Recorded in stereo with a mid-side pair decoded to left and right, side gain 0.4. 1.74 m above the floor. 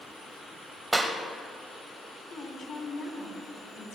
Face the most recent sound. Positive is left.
turn(degrees=60)